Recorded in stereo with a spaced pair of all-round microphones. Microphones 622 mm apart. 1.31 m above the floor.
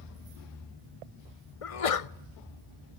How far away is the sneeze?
About 0.7 m.